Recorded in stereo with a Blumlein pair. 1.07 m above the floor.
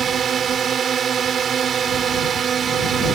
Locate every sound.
0.0 s a drone: 25° right